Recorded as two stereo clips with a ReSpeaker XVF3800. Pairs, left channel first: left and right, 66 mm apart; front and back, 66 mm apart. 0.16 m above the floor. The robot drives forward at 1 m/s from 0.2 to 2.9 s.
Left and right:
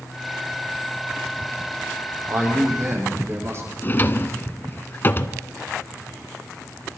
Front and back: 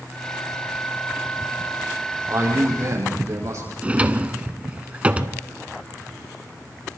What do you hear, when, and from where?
2.3 s a man speaking: 135° right, 6 m; by 3.7 s 140° right, 6.5 m
3.8 s a drawer: 125° left, 0.7 m